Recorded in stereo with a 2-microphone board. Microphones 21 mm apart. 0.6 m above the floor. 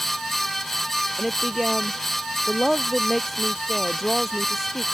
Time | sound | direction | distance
1.2 | a woman speaking | 5° right (ahead or behind) | ?